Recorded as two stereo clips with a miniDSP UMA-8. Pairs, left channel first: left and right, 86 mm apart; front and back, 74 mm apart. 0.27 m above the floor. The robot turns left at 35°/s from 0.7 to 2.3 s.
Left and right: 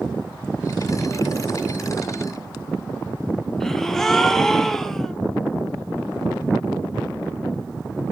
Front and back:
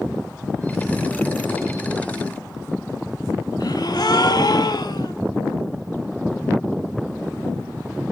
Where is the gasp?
5° left, 0.8 m.